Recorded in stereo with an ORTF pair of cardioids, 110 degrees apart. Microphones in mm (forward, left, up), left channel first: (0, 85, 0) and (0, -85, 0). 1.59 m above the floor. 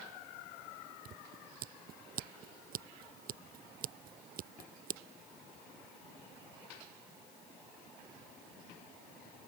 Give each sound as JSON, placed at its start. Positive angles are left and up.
{"t": 1.1, "sound": "scissors", "azimuth_deg": -60}